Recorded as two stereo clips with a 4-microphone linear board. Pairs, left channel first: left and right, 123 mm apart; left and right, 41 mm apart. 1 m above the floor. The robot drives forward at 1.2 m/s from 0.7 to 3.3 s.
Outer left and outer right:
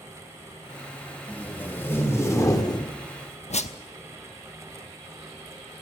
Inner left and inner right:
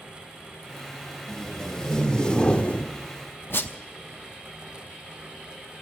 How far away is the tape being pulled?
About 2.5 m.